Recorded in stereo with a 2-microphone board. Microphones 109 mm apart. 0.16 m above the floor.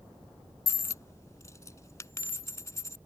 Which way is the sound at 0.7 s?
30° left (ahead or behind).